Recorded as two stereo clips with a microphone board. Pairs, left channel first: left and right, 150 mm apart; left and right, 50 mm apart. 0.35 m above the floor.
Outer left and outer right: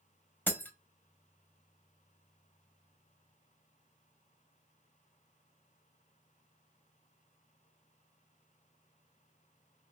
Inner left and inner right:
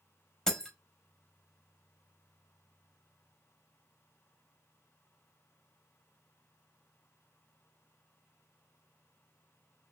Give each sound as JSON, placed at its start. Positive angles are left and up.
{"t": 0.5, "sound": "breaking glass", "side_deg": 10, "distance_m": 0.6}